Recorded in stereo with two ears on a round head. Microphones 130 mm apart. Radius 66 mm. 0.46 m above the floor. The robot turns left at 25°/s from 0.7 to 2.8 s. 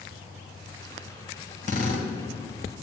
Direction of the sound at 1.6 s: 60° left (ahead or behind).